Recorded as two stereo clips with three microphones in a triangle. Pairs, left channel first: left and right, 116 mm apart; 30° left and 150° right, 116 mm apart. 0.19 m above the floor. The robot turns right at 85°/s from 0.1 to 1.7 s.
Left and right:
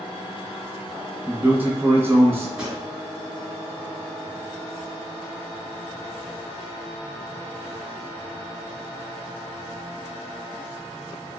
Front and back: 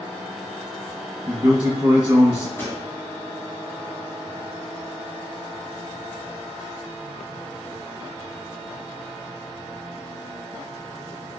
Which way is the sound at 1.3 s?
175° right.